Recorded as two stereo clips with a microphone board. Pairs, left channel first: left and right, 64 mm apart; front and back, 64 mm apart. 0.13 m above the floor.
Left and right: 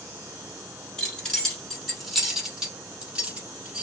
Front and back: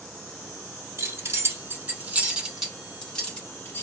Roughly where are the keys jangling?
Behind.